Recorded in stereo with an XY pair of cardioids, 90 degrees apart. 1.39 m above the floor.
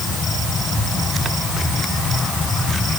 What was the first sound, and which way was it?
Only background noise.